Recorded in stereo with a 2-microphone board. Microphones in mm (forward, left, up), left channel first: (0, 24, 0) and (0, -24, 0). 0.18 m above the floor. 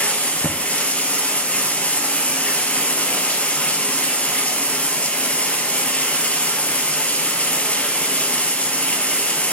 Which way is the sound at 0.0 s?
30° left (ahead or behind).